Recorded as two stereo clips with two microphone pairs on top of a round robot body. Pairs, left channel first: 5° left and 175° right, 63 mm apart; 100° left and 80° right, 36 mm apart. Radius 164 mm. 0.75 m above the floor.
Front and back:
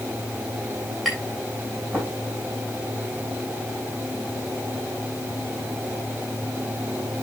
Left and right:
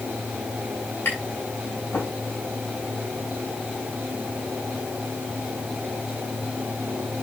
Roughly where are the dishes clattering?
I don't hear dishes clattering.